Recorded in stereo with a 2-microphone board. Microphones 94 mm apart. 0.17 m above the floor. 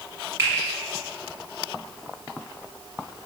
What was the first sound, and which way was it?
A finger snap, 25° right (ahead or behind).